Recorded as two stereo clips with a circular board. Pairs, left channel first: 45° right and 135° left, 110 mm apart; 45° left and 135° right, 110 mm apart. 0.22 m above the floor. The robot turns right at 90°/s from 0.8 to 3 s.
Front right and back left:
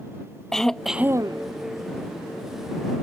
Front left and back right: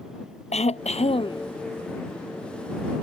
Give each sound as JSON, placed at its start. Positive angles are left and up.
{"t": 0.5, "sound": "throat clearing", "azimuth_deg": 40}